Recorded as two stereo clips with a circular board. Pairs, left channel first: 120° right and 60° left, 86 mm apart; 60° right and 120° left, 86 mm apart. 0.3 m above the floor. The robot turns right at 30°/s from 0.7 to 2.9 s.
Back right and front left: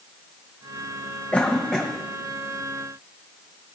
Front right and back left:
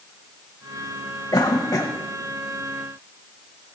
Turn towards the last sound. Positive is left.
turn(degrees=-10)